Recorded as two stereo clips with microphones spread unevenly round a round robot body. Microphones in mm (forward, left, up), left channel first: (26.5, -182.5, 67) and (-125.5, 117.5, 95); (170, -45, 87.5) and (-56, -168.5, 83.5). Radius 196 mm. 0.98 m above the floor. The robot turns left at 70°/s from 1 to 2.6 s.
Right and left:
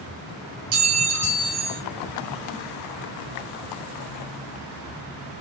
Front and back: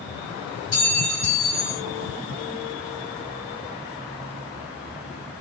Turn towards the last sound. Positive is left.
turn(degrees=-5)